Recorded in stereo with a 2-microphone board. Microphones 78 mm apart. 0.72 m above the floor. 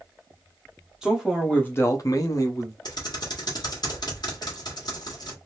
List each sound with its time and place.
1.0 s a man speaking: 5° right (ahead or behind), 1.1 m; by 2.8 s 40° left (ahead or behind), 1.2 m
2.9 s typing on a keyboard: 60° left (ahead or behind), 1.5 m